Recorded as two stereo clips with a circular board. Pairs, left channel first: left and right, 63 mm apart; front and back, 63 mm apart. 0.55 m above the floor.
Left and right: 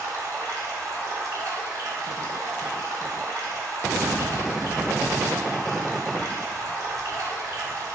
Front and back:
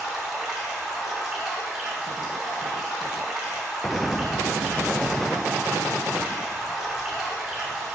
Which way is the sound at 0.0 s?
100° right.